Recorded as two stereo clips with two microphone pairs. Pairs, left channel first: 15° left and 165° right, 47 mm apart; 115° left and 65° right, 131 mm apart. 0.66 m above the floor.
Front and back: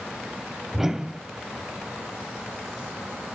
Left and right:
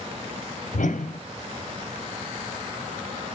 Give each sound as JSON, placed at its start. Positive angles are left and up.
{"t": 0.7, "sound": "a whoosh", "azimuth_deg": 110, "distance_m": 0.6}